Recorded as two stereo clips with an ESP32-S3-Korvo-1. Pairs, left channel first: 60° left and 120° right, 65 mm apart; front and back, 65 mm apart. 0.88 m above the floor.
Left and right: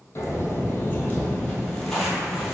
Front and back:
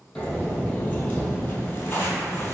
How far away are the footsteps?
About 1.1 m.